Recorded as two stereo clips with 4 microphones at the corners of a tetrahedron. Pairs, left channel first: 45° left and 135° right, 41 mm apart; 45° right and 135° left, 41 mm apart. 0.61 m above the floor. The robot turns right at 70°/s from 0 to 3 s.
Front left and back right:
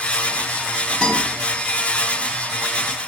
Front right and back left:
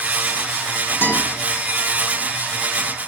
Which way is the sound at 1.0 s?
35° right.